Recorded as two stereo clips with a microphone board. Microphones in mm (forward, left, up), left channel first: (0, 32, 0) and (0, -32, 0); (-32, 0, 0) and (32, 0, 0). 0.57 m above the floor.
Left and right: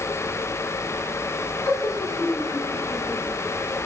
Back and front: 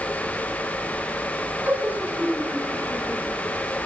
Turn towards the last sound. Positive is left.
turn(degrees=60)